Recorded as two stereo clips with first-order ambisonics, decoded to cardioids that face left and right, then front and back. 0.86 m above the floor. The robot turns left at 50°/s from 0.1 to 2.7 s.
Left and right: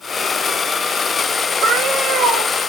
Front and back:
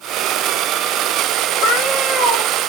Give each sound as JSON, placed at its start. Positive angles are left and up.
{"t": 1.6, "sound": "a cat meowing", "azimuth_deg": -35, "distance_m": 3.5}